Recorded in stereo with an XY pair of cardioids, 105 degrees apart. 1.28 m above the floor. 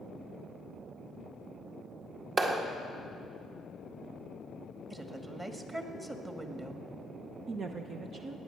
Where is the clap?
40° right, 2.0 m.